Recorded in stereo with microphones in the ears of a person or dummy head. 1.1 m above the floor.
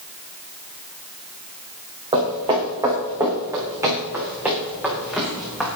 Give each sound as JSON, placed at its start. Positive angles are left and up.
{"t": 2.1, "sound": "footsteps", "side_deg": -20, "distance_m": 5.5}